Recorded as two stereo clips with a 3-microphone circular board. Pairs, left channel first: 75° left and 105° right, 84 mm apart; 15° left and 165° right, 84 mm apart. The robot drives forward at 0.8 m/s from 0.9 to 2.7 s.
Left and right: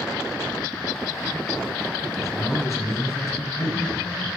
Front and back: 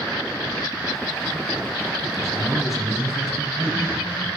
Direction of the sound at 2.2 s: 95° left.